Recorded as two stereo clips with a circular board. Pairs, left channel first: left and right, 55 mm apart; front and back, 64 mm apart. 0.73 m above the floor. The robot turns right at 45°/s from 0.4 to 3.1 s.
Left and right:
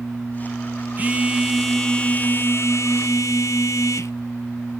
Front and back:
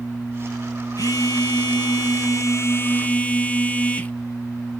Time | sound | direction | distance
1.0 | a phone buzzing | 30° right | 1.1 m